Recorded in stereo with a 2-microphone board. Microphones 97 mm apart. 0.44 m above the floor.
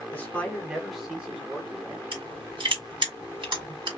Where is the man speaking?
20° left (ahead or behind), 1.2 m; by 2.0 s 20° right (ahead or behind), 2.0 m.